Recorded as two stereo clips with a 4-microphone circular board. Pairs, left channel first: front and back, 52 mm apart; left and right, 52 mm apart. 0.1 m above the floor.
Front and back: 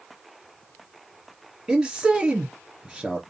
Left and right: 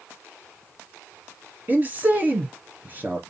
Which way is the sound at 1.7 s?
105° right.